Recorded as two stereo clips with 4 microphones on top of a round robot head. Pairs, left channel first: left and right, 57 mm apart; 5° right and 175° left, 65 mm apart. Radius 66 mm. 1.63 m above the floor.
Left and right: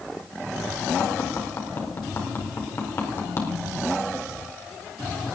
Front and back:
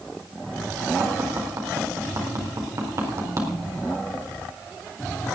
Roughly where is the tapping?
Behind left.